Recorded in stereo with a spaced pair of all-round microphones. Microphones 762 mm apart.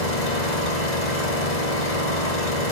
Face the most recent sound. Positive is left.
turn(degrees=65)  # may be behind; listen again after turning